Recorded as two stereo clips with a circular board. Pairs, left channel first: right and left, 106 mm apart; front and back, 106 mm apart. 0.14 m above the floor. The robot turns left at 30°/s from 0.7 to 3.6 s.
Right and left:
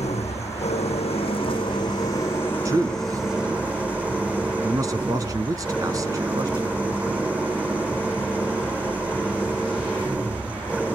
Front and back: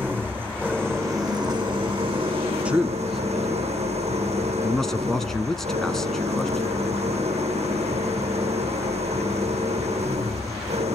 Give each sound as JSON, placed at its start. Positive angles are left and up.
{"t": 0.0, "sound": "an engine running", "azimuth_deg": -105, "distance_m": 4.5}
{"t": 2.6, "sound": "a man speaking", "azimuth_deg": 110, "distance_m": 1.4}